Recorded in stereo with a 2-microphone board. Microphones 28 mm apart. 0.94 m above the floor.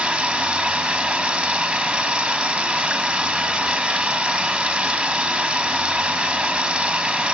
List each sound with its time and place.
0.0 s running water: 40° right (ahead or behind), 5.5 m